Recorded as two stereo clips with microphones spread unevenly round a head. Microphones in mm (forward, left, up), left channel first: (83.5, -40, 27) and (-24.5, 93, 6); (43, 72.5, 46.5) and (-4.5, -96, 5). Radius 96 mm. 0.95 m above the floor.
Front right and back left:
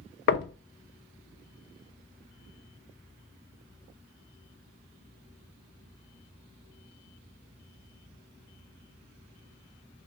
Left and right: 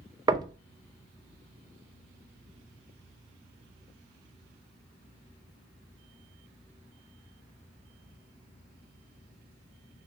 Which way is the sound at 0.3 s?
50° right.